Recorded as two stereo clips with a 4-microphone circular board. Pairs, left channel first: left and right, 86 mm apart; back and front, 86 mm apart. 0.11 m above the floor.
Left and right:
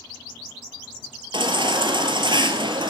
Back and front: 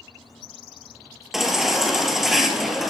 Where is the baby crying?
85° right, 1.8 m.